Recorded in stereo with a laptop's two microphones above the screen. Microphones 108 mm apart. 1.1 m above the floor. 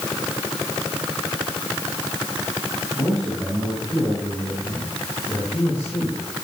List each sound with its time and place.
3.0 s a man speaking: 35° left (ahead or behind), 9 m; by 6.4 s 15° left (ahead or behind), 8.5 m